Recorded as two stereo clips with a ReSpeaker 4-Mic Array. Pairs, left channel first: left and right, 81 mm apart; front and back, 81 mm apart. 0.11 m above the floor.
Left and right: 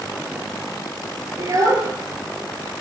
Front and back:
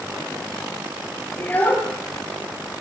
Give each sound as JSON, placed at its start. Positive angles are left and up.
{"t": 1.4, "sound": "a child speaking", "azimuth_deg": -65, "distance_m": 1.3}